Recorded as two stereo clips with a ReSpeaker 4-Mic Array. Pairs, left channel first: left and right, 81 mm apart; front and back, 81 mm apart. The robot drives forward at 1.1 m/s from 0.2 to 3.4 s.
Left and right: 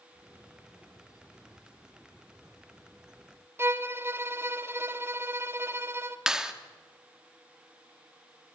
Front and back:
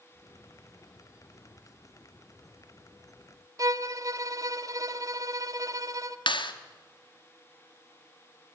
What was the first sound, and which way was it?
A violin, 145° right.